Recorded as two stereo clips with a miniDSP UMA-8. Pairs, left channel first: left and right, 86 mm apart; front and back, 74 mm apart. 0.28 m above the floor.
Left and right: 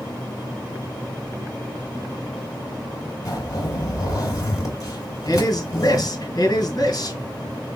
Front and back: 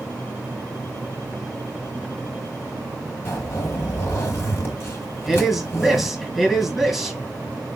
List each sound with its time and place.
3.2 s a zipper: 50° left, 2.5 m
5.2 s a man speaking: 95° left, 1.9 m